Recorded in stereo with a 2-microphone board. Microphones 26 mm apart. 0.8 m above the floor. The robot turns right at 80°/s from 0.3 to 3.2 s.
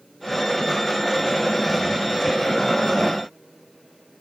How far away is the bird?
I don't hear a bird.